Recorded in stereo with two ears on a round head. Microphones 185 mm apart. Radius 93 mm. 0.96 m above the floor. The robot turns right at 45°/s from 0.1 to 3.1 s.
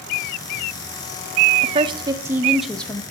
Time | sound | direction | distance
1.6 | a woman speaking | 45° right | 0.5 m